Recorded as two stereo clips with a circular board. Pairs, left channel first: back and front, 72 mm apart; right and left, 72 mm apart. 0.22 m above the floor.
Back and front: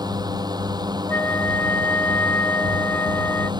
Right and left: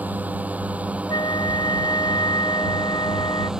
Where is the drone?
20° left; by 3.6 s 10° left.